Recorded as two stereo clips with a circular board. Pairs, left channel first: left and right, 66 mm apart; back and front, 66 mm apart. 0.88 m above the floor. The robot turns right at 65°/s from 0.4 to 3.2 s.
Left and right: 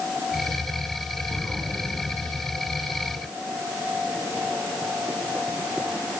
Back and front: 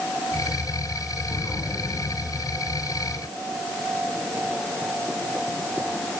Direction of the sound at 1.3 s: 165° left.